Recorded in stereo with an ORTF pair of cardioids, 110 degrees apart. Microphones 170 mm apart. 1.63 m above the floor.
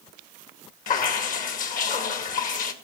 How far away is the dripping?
About 2.0 m.